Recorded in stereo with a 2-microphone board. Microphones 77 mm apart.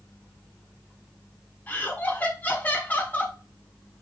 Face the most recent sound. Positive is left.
turn(degrees=20)  # may be behind; listen again after turning